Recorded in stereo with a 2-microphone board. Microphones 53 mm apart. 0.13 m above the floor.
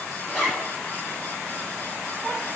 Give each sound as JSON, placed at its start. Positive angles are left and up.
{"t": 0.3, "sound": "a zipper", "side_deg": 10, "distance_m": 4.0}